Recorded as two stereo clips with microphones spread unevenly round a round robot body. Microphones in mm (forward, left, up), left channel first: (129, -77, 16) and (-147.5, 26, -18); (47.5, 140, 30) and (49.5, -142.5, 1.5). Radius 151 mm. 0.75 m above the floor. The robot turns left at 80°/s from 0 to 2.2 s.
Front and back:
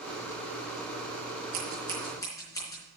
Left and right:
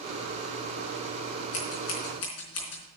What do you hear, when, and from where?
1.5 s scissors: 110° left, 4 m; by 2.8 s 60° left, 4 m